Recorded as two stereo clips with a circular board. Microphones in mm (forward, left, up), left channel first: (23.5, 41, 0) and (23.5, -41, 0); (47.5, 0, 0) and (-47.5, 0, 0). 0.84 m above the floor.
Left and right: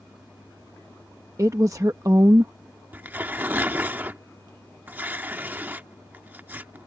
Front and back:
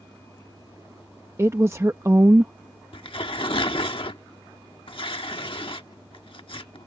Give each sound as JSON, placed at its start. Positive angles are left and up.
{"t": 1.4, "sound": "a woman speaking", "azimuth_deg": -125}
{"t": 2.9, "sound": "tearing paper", "azimuth_deg": -25}